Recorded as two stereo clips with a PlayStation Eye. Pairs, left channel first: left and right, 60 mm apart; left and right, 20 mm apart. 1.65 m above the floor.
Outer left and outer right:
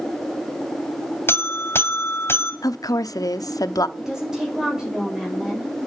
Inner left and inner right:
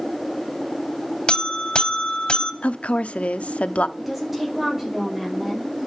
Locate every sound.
1.3 s a buzzer: 40° left (ahead or behind), 1.8 m
2.6 s a woman speaking: 80° left, 0.9 m
4.0 s a woman speaking: 10° right (ahead or behind), 6 m